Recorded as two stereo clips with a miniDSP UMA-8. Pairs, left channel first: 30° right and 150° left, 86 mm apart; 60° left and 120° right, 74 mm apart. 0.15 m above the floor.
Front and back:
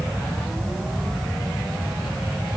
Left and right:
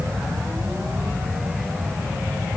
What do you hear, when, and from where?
Only background noise.